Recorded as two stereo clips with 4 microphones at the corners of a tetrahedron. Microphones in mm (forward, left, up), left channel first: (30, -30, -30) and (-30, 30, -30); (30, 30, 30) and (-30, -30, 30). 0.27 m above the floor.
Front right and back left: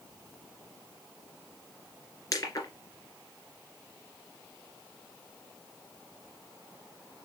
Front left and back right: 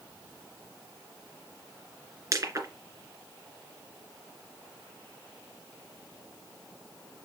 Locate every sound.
2.3 s crushing: 85° right, 2.5 m